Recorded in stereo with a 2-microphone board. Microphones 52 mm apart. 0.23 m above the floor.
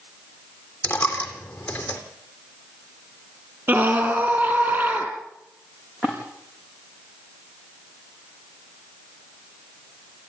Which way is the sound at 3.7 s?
45° right (ahead or behind).